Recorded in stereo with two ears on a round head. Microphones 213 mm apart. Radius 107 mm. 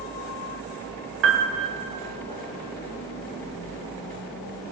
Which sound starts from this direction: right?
A piano, at 1.2 s.